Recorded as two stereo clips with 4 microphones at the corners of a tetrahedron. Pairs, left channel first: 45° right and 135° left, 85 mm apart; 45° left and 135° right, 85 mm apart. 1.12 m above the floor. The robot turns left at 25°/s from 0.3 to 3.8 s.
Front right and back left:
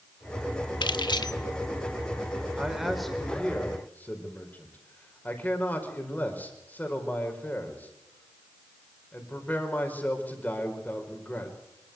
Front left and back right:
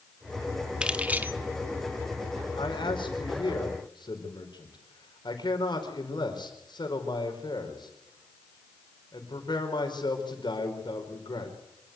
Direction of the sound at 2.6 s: 55° left.